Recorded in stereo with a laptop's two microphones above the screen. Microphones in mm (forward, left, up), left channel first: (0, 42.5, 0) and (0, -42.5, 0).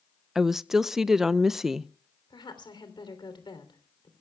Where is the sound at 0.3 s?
5° right (ahead or behind), 0.6 m.